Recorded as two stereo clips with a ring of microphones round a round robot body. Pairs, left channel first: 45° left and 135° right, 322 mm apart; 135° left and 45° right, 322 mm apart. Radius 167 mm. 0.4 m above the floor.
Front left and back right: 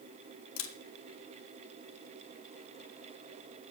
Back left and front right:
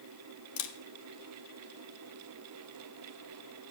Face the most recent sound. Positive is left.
turn(degrees=95)